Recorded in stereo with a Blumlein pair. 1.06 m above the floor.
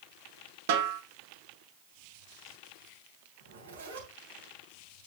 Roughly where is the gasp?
No gasp in this recording.